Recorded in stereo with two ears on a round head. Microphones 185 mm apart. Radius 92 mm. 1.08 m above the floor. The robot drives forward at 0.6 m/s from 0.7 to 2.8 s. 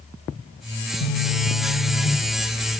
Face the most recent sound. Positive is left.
turn(degrees=30)  # may be behind; listen again after turning